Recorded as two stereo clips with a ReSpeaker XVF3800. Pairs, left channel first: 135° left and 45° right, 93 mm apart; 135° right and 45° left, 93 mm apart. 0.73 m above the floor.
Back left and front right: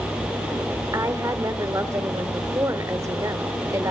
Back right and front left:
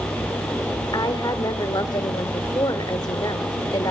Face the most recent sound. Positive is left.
turn(degrees=-95)